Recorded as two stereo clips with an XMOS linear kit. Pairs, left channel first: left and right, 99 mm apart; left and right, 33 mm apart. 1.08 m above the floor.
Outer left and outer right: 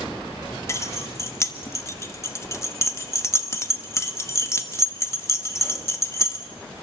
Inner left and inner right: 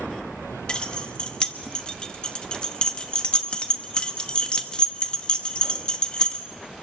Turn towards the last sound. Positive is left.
turn(degrees=30)  # may be behind; listen again after turning